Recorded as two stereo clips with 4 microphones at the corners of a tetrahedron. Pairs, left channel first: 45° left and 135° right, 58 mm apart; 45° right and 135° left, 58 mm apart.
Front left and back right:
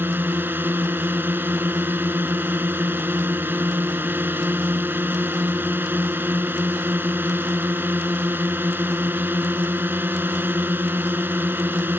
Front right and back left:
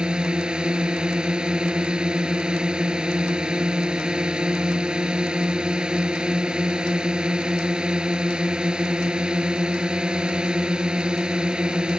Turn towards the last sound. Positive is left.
turn(degrees=-160)